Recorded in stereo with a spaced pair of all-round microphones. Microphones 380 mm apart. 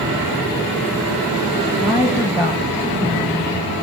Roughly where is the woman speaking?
Centre.